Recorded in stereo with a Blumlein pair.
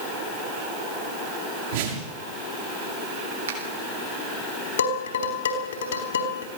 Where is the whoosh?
55° right, 6 m.